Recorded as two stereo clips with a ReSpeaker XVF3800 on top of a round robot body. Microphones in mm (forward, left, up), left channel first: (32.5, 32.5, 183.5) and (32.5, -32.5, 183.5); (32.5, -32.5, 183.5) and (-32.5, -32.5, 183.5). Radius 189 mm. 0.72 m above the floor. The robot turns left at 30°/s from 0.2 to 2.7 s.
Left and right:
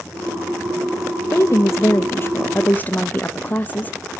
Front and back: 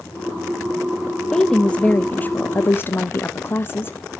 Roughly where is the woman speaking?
Left.